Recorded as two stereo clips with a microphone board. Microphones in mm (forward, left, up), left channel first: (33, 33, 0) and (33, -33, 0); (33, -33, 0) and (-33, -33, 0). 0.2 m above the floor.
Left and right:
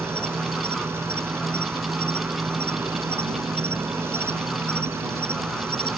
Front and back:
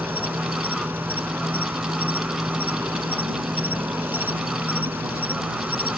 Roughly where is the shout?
No shout in this recording.